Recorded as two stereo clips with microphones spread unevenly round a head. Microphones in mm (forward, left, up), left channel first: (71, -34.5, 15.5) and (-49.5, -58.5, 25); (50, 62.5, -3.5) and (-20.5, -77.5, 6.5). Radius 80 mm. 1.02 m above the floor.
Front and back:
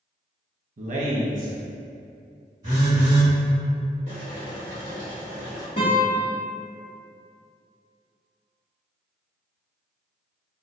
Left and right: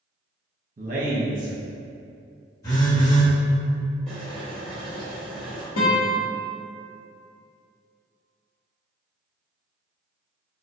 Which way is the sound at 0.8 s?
160° right.